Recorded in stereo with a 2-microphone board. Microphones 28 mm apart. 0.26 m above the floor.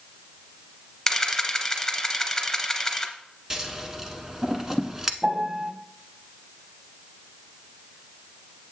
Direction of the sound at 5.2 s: 20° right (ahead or behind).